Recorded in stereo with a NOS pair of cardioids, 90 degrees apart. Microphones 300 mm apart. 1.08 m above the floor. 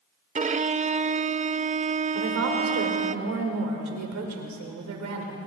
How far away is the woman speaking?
About 5 m.